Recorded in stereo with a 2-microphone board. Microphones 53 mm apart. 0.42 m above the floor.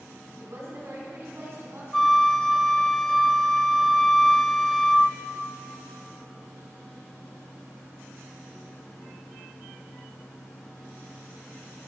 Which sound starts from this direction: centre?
A flute, at 1.9 s.